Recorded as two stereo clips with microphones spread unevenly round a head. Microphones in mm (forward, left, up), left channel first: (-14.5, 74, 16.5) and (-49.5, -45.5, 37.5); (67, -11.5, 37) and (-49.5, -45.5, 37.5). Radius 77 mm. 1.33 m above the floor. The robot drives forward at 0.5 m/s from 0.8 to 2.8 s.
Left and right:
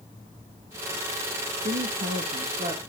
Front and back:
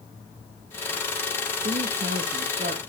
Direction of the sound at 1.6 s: 130° right.